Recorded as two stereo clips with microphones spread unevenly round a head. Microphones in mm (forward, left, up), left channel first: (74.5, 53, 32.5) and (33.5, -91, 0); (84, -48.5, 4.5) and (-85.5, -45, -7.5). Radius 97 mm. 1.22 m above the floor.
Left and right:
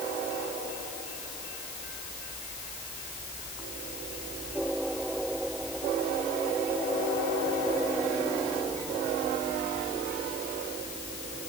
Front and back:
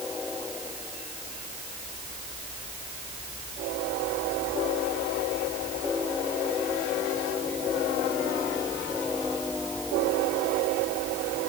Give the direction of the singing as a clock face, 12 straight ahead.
No singing in this recording.